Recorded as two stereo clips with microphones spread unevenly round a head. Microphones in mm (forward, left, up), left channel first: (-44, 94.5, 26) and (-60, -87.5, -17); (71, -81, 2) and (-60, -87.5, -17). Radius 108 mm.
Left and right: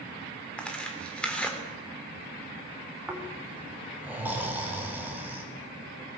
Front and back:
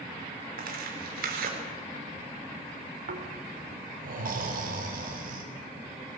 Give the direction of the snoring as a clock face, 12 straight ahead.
6 o'clock.